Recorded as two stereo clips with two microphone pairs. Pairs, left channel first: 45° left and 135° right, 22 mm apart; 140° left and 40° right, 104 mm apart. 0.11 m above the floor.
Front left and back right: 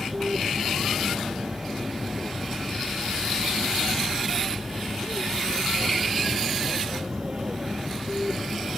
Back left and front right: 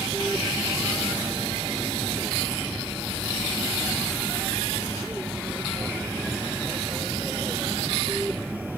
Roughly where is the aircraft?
Behind right.